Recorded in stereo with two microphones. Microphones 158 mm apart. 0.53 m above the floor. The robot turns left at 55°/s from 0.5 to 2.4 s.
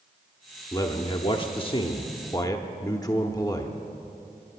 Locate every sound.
0.7 s a man speaking: 140° left, 0.8 m; by 3.8 s 45° left, 0.8 m